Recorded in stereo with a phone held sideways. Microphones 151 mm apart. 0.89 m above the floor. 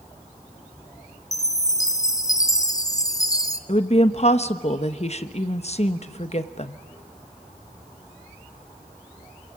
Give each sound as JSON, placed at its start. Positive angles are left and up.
{"t": 1.3, "sound": "a chime", "side_deg": 25, "distance_m": 0.8}
{"t": 3.7, "sound": "a woman speaking", "side_deg": 45, "distance_m": 1.0}